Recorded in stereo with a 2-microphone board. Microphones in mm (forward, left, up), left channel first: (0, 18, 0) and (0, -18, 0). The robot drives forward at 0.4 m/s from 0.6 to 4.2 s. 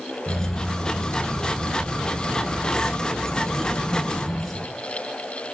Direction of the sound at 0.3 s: 20° left (ahead or behind).